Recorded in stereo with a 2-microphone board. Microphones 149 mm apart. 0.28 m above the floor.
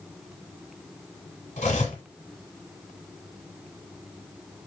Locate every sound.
1.6 s cutlery clinking: 50° left (ahead or behind), 1.0 m